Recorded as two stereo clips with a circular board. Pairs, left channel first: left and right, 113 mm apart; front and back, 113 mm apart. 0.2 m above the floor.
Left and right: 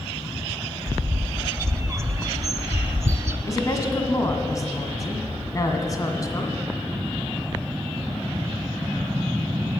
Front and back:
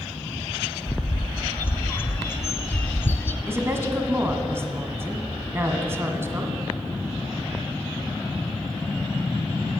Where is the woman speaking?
125° left, 1.6 m.